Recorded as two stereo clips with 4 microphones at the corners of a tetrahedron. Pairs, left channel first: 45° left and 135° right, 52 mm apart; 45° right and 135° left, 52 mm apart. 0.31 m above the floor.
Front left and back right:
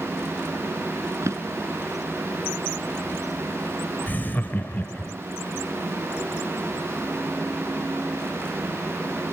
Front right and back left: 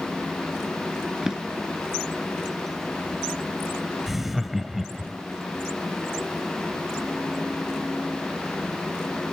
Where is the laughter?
50° left, 1.0 m.